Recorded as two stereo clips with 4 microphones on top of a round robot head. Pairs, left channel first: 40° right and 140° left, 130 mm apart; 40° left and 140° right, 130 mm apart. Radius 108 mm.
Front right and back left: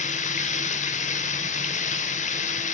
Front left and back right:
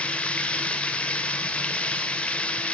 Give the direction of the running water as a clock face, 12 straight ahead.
1 o'clock.